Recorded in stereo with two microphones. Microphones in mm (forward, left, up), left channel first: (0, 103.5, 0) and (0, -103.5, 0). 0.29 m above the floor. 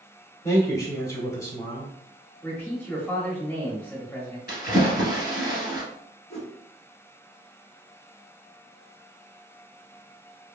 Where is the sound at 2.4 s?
10° left (ahead or behind), 1.0 m.